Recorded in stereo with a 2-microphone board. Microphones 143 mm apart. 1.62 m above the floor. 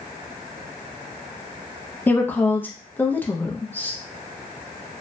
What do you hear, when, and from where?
2.1 s a woman speaking: 15° left (ahead or behind), 0.5 m